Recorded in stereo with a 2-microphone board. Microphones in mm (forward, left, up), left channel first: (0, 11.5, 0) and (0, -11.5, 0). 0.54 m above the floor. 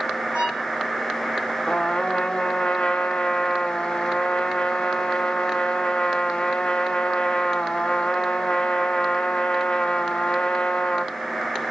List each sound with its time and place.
0.3 s a violin: 50° right (ahead or behind), 4 m
1.7 s a trumpet: 45° left (ahead or behind), 1.1 m